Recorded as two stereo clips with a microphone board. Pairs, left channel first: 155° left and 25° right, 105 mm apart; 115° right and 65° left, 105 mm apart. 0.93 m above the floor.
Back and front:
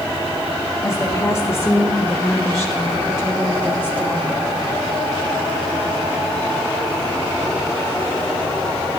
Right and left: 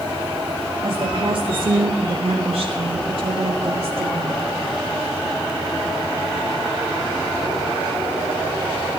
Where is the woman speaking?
95° left, 2 m; by 4.4 s 45° left, 2 m.